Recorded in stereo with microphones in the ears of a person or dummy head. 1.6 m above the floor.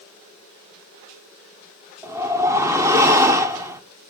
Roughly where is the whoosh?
Centre.